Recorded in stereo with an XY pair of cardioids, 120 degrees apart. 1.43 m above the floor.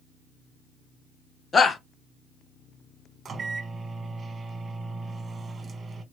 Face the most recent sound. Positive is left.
turn(degrees=-35)